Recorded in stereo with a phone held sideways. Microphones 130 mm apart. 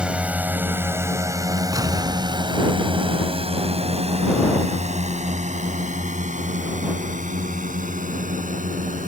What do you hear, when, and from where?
0.0 s a drone: 5° right (ahead or behind); by 9.1 s 75° right (ahead or behind)
1.7 s an explosion: 25° right (ahead or behind)